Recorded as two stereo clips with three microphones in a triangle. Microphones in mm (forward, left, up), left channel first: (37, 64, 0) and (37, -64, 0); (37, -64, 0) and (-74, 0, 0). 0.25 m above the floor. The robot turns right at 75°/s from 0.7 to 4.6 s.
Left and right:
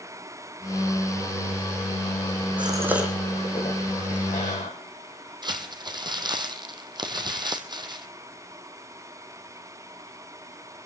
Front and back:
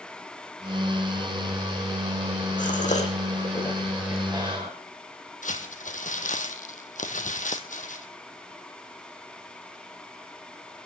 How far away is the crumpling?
About 2 m.